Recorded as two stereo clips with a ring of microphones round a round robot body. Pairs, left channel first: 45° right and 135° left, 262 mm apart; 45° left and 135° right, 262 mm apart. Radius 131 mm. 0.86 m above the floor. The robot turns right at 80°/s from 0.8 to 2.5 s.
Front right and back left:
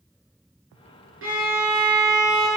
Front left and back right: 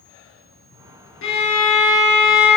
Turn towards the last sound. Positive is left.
turn(degrees=-165)